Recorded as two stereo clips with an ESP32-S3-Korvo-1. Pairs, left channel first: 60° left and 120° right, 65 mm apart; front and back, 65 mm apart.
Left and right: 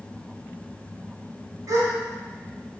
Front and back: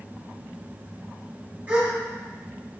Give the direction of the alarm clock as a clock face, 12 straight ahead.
I don't hear an alarm clock.